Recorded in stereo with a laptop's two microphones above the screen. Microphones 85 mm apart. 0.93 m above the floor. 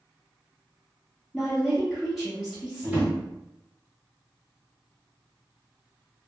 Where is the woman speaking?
Centre (ahead or behind), 0.6 m.